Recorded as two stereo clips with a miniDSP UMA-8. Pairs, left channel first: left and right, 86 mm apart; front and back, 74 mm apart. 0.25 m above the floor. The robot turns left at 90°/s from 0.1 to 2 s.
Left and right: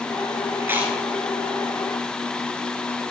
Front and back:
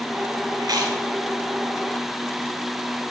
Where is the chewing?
145° right, 1.3 m; by 1.0 s straight behind, 1.3 m.